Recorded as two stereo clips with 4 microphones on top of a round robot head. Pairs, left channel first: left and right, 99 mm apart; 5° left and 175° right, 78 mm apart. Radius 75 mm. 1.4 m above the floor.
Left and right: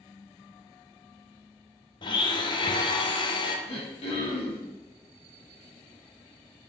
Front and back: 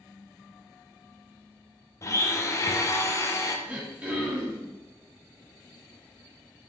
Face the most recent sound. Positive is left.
turn(degrees=110)